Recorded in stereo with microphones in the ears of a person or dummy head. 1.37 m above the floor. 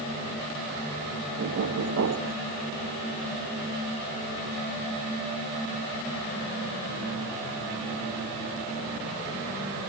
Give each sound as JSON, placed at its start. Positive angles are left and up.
{"t": 1.4, "sound": "knocking", "side_deg": -65, "distance_m": 1.0}